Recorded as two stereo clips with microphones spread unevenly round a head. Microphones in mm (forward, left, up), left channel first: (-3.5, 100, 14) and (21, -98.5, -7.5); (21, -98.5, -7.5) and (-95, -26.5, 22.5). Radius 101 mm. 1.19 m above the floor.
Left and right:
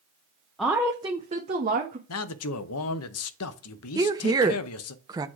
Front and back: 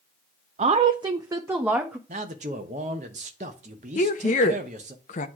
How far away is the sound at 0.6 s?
About 0.6 m.